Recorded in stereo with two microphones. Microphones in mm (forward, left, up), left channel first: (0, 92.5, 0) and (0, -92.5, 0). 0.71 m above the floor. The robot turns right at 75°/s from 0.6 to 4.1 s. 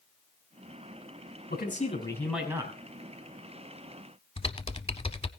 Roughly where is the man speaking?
Behind left.